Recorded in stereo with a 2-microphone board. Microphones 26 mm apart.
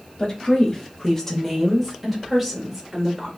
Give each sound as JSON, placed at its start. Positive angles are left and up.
{"t": 0.2, "sound": "a woman speaking", "side_deg": 35, "distance_m": 1.1}